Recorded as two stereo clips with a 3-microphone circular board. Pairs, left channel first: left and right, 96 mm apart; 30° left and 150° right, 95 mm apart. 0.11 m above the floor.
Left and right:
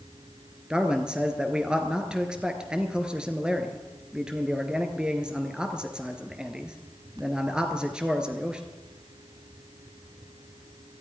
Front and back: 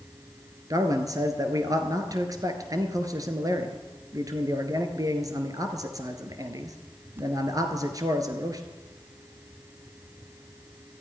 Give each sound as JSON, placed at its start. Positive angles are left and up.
{"t": 0.7, "sound": "a man speaking", "azimuth_deg": -165, "distance_m": 1.5}